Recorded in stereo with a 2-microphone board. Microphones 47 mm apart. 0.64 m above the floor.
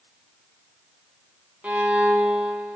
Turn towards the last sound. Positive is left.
turn(degrees=-30)  # may be behind; listen again after turning